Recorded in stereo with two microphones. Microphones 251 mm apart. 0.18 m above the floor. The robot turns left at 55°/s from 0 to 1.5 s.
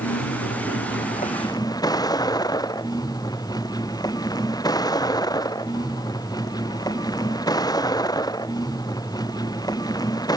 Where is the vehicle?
100° left; by 10.4 s 15° left.